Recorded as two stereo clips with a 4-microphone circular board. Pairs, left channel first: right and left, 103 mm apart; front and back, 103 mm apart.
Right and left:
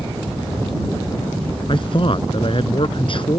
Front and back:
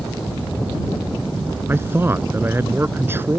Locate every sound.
1.7 s a man speaking: 115° right